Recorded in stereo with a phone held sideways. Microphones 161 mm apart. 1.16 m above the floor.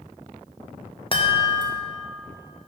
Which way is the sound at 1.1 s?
35° left (ahead or behind).